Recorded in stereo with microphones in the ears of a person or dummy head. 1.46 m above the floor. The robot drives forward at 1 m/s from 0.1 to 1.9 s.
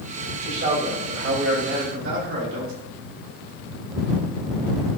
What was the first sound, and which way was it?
A man speaking, 50° right (ahead or behind).